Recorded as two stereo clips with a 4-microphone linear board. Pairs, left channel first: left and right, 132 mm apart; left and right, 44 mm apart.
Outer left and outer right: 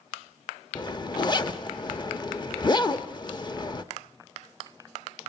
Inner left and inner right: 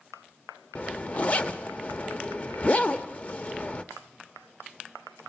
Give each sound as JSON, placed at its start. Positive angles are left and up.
{"t": 0.8, "sound": "a zipper", "side_deg": 35, "distance_m": 0.9}